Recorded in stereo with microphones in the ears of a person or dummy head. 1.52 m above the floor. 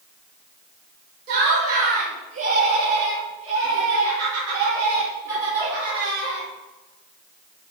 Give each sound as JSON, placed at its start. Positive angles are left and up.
{"t": 1.3, "sound": "laughter", "side_deg": -55, "distance_m": 2.0}